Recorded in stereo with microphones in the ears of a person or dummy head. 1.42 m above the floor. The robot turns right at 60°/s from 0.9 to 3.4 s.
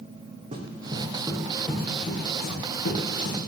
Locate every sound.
0.5 s running footsteps: 40° right (ahead or behind), 3.5 m; by 3.4 s 60° left (ahead or behind), 5.5 m